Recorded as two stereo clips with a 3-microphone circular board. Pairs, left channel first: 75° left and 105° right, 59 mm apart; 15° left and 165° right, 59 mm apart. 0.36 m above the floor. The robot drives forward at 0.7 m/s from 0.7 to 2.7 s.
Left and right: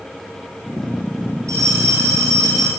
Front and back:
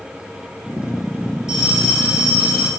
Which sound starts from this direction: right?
A bell, at 1.5 s.